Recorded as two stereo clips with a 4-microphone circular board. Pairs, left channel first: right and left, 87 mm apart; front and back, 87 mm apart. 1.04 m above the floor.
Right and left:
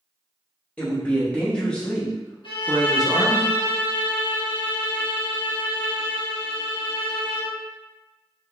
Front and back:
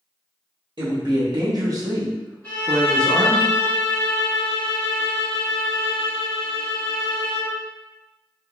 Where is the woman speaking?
165° right, 1.4 m; by 3.4 s 15° left, 0.8 m.